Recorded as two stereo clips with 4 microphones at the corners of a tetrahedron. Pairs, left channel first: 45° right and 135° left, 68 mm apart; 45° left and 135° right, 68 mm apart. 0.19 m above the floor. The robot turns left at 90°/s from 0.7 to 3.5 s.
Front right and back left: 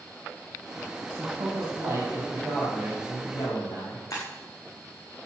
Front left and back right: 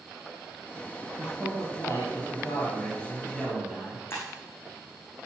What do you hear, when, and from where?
1.2 s a man speaking: 155° left, 5.5 m; by 4.0 s 50° right, 5.5 m
4.1 s breaking glass: 10° right, 6.5 m